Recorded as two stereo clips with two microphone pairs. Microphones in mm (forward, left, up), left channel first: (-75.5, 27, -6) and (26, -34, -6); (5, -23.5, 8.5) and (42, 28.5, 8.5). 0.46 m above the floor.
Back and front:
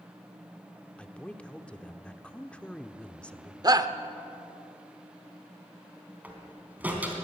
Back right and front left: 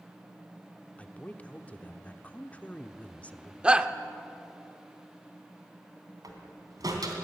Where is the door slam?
45° left, 3 m.